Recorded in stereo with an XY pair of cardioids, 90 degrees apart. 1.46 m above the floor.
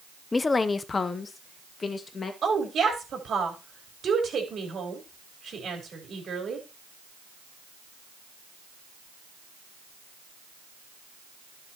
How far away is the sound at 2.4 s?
About 4.5 m.